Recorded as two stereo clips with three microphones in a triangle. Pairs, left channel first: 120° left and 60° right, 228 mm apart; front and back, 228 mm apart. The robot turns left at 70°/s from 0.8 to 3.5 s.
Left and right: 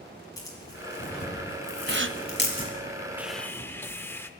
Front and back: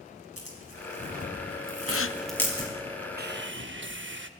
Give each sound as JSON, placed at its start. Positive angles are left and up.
{"t": 0.4, "sound": "tearing paper", "azimuth_deg": -165, "distance_m": 4.5}
{"t": 1.9, "sound": "a gasp", "azimuth_deg": -15, "distance_m": 0.5}
{"t": 3.2, "sound": "sawing", "azimuth_deg": -140, "distance_m": 0.7}